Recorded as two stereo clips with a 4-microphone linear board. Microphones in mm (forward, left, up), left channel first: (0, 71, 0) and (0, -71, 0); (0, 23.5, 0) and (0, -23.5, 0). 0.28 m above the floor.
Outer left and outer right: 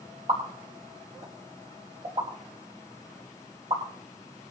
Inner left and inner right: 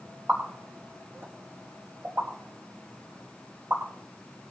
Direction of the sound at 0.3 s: 50° right (ahead or behind).